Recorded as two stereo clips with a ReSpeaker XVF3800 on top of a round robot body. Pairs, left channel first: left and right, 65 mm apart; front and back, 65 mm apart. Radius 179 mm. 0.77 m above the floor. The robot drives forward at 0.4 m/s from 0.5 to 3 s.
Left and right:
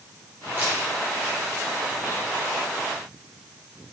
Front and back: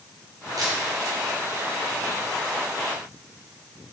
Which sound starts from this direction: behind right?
A camera shutter, at 0.6 s.